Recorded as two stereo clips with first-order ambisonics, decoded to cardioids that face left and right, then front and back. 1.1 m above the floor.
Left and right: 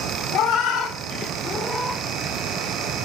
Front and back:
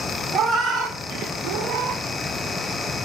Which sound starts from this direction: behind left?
A cat meowing, at 0.3 s.